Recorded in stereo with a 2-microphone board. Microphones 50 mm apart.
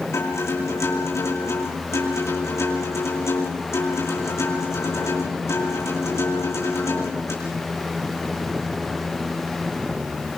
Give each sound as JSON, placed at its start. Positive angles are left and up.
{"t": 0.1, "sound": "a guitar", "side_deg": 65, "distance_m": 8.0}